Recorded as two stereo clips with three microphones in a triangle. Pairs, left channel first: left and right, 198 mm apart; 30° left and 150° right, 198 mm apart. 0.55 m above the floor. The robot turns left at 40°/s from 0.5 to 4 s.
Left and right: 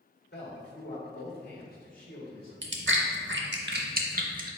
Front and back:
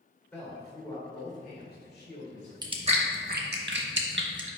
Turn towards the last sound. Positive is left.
turn(degrees=-135)